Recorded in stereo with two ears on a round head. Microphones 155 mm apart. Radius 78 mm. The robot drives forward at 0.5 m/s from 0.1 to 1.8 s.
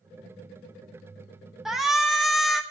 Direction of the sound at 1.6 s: 5° right (ahead or behind).